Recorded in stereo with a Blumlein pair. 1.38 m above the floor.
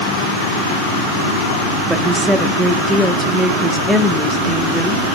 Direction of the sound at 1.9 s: 5° right.